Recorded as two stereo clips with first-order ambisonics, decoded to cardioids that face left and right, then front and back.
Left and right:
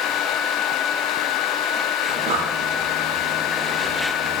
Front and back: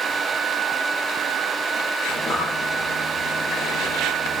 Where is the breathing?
55° right, 6.5 m.